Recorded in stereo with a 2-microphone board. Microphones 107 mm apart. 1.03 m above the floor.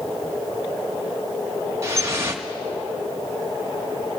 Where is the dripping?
25° right (ahead or behind), 1.0 m.